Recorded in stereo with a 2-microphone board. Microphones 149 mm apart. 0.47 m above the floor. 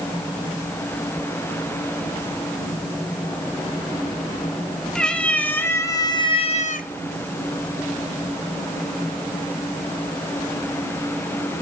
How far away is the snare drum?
No snare drum in this recording.